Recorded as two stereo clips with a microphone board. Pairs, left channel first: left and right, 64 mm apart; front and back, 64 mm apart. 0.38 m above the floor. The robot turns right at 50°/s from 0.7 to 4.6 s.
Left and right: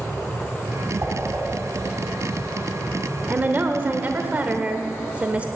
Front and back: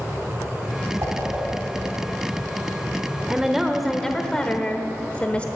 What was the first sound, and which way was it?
A whoosh, 140° right.